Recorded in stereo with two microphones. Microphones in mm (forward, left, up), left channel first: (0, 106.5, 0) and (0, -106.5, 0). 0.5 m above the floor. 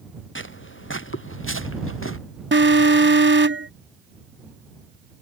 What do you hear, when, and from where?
0.3 s footsteps: 65° left (ahead or behind); by 2.2 s 75° left (ahead or behind)
2.5 s an alarm: 65° right (ahead or behind)